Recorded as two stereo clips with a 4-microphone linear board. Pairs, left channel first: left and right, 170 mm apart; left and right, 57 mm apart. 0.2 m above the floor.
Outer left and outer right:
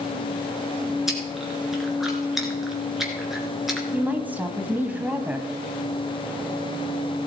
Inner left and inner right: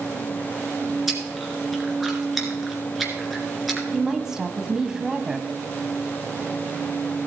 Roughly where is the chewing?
Centre.